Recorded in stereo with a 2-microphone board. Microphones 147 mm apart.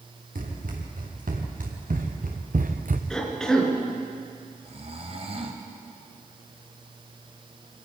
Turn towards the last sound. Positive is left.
turn(degrees=-45)  # may be behind; listen again after turning